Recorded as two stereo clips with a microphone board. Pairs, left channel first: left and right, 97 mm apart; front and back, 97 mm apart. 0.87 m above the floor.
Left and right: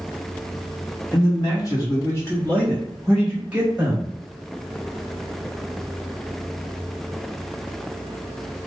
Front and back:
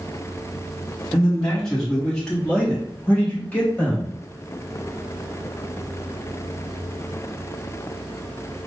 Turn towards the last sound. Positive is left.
turn(degrees=-60)